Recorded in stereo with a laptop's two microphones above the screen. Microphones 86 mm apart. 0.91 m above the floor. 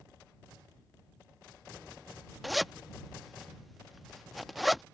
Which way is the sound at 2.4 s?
Centre (ahead or behind).